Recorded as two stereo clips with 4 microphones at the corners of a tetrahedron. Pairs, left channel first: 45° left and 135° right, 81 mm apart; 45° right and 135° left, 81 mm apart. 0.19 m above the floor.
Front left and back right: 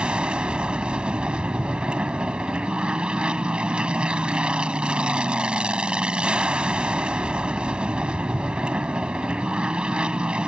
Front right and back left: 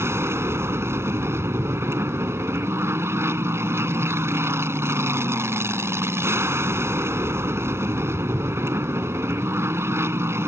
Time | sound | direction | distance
0.0 | an aircraft | 155° left | ?